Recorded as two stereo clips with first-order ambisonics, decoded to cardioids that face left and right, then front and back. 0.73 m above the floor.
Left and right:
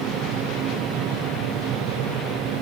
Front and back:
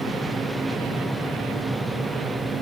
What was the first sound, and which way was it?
Only background noise.